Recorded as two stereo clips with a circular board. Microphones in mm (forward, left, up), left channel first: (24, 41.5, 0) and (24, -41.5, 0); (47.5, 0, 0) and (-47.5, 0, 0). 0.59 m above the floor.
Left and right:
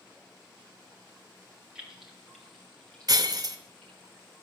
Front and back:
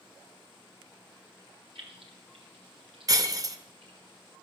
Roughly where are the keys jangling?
Behind.